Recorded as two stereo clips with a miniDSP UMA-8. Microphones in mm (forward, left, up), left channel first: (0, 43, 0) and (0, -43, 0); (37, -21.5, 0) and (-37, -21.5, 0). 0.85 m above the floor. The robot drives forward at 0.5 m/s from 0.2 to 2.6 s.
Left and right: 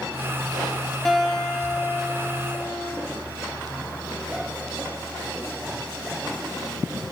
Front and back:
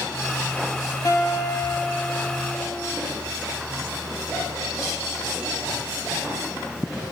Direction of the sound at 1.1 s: 10° left.